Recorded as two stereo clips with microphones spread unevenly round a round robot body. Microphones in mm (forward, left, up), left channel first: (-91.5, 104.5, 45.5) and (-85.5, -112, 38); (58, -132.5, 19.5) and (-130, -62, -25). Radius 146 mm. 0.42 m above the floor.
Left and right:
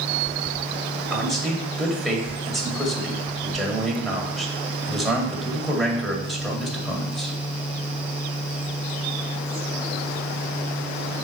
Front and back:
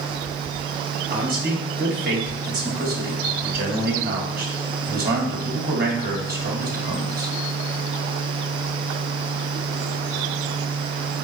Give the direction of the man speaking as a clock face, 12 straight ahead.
6 o'clock.